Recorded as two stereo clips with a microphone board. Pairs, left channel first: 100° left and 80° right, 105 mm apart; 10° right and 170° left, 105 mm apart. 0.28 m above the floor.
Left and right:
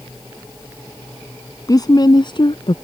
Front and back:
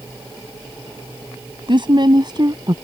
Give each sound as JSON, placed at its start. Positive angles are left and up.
{"t": 1.7, "sound": "a woman speaking", "azimuth_deg": 145}